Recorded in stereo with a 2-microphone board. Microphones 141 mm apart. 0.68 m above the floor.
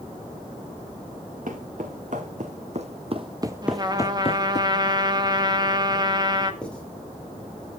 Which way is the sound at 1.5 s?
65° right (ahead or behind).